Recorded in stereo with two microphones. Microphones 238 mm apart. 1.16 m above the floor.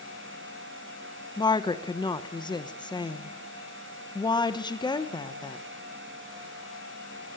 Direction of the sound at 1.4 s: 20° left (ahead or behind).